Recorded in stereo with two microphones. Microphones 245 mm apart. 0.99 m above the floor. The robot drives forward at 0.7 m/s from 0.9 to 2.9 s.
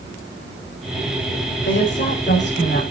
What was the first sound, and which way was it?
A woman speaking, 50° left (ahead or behind).